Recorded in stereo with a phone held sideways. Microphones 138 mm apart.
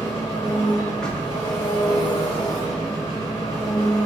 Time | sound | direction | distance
0.0 | an engine running | 30° left (ahead or behind) | 1.5 m
1.0 | knocking | 5° left (ahead or behind) | 0.6 m